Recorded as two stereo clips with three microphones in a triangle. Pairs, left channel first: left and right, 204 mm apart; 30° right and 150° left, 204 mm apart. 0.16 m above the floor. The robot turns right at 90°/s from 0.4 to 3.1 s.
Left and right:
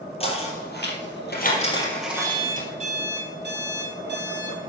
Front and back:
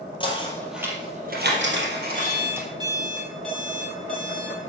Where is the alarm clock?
160° left, 3.5 m; by 4.7 s 115° right, 3.5 m.